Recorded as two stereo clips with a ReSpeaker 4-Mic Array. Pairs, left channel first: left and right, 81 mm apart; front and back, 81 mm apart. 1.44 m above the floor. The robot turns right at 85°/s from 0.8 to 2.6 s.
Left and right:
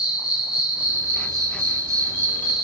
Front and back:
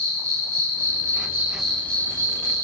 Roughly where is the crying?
I don't hear crying.